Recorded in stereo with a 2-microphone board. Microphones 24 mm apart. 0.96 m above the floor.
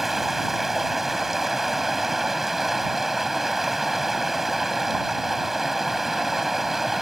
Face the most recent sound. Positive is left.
turn(degrees=-15)  # may be behind; listen again after turning